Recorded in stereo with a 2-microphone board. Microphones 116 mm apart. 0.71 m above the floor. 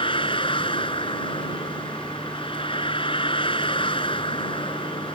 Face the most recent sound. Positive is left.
turn(degrees=50)  # may be behind; listen again after turning